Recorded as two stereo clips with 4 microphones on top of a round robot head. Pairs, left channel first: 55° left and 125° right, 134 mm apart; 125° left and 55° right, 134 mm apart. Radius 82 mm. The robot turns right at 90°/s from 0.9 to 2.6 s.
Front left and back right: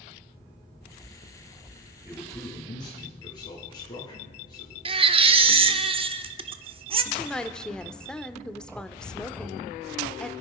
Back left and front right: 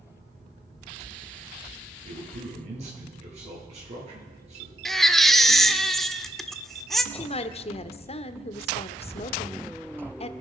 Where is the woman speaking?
135° left, 1.1 m.